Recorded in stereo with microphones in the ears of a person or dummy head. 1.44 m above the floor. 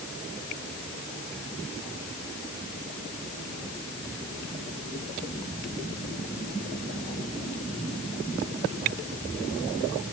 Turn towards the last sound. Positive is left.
No sound to turn to.